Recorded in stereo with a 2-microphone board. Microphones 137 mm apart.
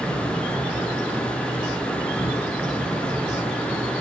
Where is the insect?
10° left (ahead or behind), 1.4 m.